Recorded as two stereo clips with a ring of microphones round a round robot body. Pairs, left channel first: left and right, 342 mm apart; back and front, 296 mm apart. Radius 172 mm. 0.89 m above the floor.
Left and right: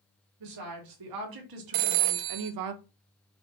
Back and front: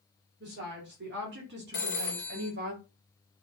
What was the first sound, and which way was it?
A woman speaking, 60° right.